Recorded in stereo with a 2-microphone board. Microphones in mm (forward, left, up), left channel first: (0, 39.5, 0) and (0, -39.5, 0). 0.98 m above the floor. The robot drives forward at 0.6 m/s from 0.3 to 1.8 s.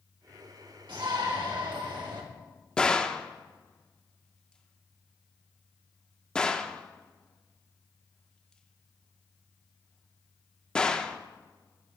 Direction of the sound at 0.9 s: 75° right (ahead or behind).